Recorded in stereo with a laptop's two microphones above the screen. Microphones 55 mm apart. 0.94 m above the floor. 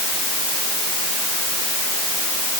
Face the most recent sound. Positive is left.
No sound to turn to.